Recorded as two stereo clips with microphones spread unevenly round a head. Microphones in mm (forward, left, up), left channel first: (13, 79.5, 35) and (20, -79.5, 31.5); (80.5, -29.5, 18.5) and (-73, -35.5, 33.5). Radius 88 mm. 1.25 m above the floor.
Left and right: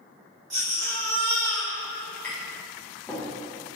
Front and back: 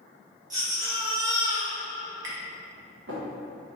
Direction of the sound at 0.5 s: 140° right.